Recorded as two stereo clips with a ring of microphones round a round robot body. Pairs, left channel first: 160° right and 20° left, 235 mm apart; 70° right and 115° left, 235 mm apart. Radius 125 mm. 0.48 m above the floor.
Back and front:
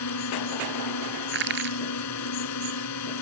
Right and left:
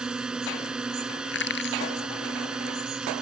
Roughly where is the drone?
Behind.